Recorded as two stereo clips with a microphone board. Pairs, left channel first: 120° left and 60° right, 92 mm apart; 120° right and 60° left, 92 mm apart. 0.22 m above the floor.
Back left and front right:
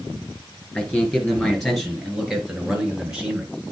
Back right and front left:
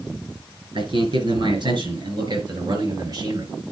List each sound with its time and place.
0.8 s a man speaking: 40° left, 4.5 m; by 3.5 s 15° left, 4 m